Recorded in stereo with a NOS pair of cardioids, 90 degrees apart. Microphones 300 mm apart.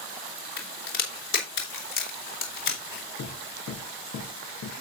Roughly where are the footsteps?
Ahead left.